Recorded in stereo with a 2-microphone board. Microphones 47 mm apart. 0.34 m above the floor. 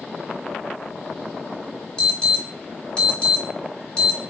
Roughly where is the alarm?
Left.